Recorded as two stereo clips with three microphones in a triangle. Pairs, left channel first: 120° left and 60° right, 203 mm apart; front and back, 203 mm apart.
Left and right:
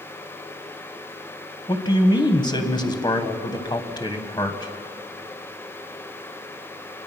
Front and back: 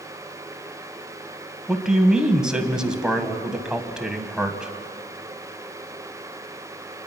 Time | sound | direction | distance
1.7 | a man speaking | 100° left | 1.4 m